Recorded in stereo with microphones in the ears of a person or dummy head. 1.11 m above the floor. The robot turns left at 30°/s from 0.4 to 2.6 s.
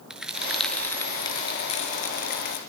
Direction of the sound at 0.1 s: 175° right.